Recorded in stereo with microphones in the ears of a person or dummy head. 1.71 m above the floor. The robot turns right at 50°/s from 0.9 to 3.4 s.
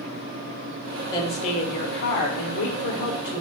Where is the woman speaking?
20° left, 0.9 m; by 3.4 s 135° left, 0.9 m.